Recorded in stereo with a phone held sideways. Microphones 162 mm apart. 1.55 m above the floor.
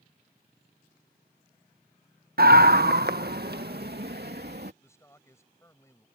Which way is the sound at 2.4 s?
70° right (ahead or behind).